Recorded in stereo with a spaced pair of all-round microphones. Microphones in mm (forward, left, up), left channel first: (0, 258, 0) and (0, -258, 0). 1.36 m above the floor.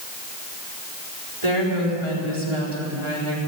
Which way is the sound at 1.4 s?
65° right (ahead or behind).